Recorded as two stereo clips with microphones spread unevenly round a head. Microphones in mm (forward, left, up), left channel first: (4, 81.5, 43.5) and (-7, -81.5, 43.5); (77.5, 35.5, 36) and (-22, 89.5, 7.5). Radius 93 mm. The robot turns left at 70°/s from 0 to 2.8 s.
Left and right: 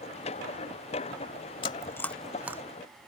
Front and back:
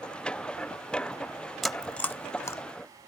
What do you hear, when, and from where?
1.6 s chewing: 40° left; by 2.6 s 30° right